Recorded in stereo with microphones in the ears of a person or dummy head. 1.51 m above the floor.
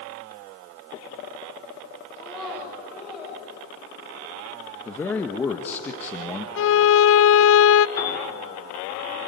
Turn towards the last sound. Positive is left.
turn(degrees=20)  # may be behind; listen again after turning